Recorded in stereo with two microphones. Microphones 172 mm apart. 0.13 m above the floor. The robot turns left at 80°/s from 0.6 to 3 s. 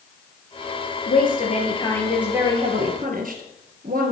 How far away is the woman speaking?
About 3 m.